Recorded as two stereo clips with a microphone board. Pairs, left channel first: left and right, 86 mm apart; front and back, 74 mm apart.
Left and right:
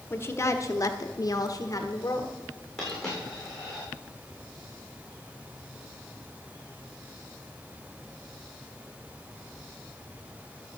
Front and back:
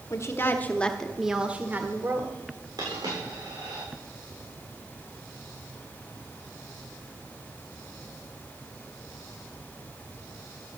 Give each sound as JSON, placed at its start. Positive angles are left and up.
{"t": 0.1, "sound": "a woman speaking", "azimuth_deg": 35, "distance_m": 1.2}
{"t": 2.8, "sound": "a dropped coin", "azimuth_deg": 175, "distance_m": 6.0}